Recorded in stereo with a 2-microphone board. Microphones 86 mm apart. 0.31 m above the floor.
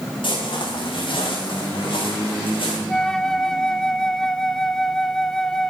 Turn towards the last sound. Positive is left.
turn(degrees=5)  # may be behind; listen again after turning